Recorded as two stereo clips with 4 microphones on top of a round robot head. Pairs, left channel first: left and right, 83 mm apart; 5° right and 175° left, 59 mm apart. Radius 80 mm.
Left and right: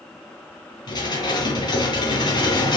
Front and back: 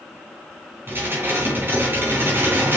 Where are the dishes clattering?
120° left, 3.5 m.